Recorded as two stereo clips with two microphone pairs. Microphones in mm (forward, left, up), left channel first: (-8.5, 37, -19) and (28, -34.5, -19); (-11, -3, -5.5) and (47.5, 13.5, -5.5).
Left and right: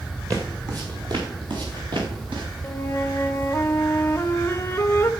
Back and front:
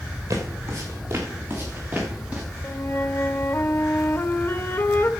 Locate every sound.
0.3 s footsteps: 15° right, 3 m; by 2.4 s 55° right, 5 m
2.6 s a flute: 170° left, 1.0 m